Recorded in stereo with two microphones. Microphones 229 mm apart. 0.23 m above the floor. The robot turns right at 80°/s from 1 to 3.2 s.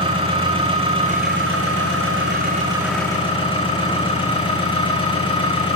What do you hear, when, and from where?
0.0 s an engine running: 155° right, 8.5 m; by 5.8 s 20° left, 8.5 m